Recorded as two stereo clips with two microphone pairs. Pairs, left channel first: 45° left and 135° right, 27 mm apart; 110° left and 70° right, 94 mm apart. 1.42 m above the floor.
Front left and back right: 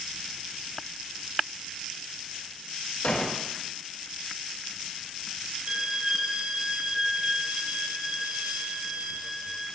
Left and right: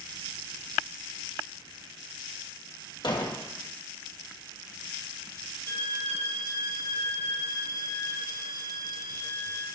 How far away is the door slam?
About 1.8 m.